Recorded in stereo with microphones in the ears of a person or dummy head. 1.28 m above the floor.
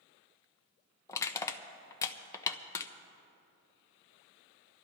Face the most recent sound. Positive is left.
turn(degrees=15)  # may be behind; listen again after turning